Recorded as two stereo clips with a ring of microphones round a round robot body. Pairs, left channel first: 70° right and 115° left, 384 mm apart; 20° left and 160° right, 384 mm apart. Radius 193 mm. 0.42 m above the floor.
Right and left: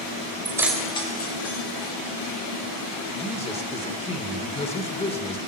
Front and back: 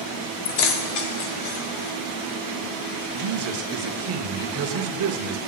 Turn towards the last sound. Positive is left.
turn(degrees=-135)